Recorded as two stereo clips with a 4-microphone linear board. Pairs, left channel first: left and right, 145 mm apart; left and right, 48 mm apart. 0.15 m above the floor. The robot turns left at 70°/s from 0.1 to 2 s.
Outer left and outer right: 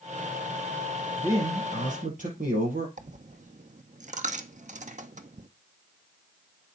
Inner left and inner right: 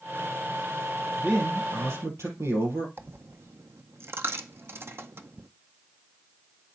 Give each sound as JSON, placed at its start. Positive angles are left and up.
{"t": 1.2, "sound": "a man speaking", "azimuth_deg": -15, "distance_m": 6.0}
{"t": 3.0, "sound": "a dropped coin", "side_deg": -55, "distance_m": 0.6}